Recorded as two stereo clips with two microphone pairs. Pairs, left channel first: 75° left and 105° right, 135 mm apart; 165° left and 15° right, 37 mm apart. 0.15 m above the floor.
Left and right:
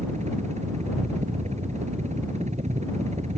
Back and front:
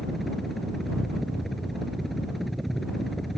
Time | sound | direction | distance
0.0 | a helicopter | 110° right | ?